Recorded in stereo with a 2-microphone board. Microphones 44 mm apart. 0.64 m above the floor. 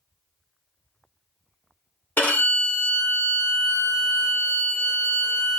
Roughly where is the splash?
No splash in this recording.